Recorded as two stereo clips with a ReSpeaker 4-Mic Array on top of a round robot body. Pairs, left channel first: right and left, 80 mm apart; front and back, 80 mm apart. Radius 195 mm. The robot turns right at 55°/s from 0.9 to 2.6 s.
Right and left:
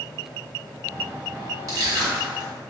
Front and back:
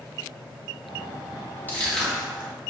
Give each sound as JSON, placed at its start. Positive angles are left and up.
{"t": 1.7, "sound": "crushing", "azimuth_deg": 60, "distance_m": 1.8}